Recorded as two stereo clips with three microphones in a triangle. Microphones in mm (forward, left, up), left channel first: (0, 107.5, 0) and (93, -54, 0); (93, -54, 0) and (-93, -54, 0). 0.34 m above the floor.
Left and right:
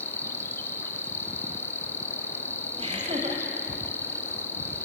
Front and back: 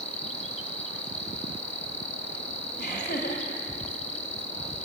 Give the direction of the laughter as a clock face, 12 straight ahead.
12 o'clock.